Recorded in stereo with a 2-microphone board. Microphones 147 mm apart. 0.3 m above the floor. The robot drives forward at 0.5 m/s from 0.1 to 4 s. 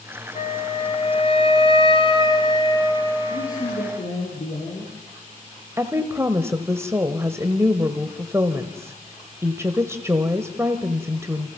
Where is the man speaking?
65° left (ahead or behind), 6 m; by 5.0 s 70° left (ahead or behind), 5.5 m.